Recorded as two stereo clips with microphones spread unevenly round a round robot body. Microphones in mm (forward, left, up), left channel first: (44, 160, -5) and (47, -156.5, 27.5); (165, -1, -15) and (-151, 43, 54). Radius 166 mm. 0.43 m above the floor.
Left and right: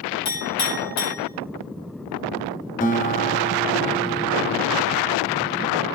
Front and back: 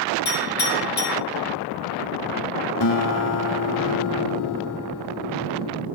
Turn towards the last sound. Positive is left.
turn(degrees=25)